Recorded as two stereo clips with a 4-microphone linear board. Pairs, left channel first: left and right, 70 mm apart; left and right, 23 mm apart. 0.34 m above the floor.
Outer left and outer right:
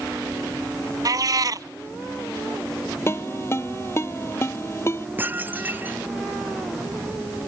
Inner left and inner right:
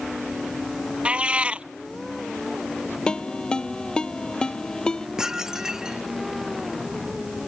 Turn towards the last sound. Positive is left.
turn(degrees=-30)  # may be behind; listen again after turning